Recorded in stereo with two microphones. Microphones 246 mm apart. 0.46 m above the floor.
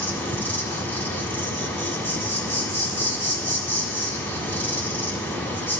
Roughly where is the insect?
Centre.